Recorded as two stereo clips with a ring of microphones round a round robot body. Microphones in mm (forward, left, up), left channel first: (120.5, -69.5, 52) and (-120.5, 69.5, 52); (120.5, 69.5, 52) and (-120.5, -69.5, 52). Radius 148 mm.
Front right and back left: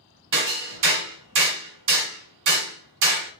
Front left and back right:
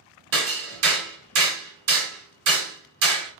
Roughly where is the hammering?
Behind.